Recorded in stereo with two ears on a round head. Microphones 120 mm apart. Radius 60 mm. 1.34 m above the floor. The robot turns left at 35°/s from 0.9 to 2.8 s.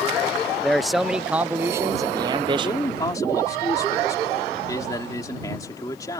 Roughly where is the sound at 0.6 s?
Ahead.